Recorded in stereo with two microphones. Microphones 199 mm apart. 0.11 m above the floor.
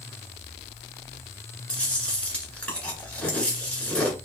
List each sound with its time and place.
1.7 s chewing: 5° left (ahead or behind), 1.7 m